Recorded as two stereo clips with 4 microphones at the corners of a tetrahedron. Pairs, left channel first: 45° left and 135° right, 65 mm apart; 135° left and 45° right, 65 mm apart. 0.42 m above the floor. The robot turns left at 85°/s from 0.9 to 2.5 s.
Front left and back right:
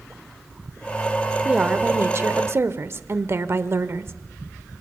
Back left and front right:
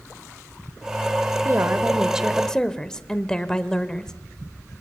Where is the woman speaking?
60° right, 1.1 m; by 4.1 s 150° right, 1.1 m.